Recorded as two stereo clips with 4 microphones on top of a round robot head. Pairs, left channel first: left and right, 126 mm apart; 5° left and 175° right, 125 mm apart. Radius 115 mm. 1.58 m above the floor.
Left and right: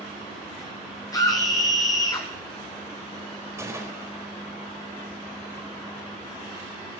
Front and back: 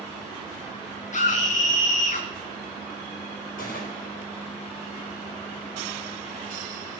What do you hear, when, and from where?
1.1 s a scream: 25° left, 1.3 m
3.6 s a gunshot: 25° right, 3.5 m